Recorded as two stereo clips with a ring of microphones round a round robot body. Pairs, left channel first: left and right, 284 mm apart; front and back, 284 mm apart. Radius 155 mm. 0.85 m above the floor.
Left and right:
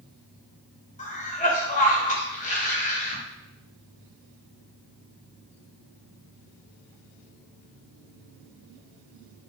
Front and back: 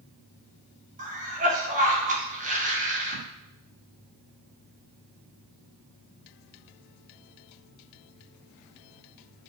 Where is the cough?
135° left, 0.9 m.